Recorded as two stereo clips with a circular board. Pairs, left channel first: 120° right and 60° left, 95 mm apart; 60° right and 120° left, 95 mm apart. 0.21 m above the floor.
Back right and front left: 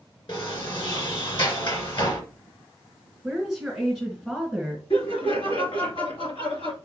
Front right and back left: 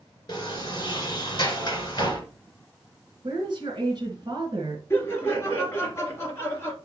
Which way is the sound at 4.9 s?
120° right.